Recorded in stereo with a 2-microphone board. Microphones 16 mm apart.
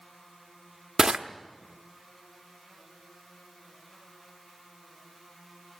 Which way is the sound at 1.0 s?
40° right (ahead or behind).